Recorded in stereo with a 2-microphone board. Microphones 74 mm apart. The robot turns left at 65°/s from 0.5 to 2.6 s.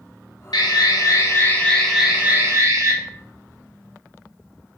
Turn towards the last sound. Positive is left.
turn(degrees=-45)